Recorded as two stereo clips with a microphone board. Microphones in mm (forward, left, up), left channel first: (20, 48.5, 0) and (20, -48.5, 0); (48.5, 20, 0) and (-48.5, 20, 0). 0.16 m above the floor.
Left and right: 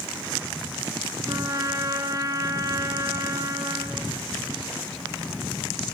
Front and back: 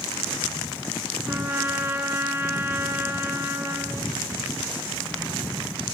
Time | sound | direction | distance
1.3 | a trumpet | 125° right | 2 m